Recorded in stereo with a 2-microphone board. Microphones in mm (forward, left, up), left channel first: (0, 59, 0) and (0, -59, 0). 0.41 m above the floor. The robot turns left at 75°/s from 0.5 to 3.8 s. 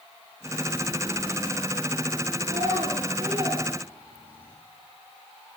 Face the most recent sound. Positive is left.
turn(degrees=-15)  # may be behind; listen again after turning